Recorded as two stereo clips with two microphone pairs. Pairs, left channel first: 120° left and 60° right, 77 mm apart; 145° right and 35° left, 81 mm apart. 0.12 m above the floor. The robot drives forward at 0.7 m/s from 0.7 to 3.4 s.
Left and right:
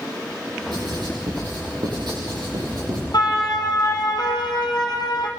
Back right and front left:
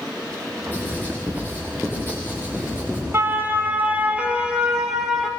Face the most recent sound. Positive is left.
turn(degrees=130)